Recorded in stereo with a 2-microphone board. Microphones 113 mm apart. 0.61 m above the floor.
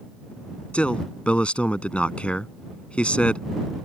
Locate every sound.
0.7 s a man speaking: 10° left (ahead or behind)